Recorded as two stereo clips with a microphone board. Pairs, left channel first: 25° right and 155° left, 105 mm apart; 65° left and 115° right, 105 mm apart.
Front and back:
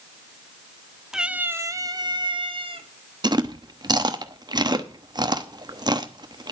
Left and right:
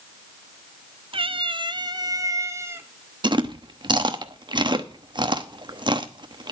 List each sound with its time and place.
1.1 s a cat meowing: 120° right, 0.7 m; by 2.9 s 175° right, 1.3 m
3.2 s chewing: 155° right, 0.9 m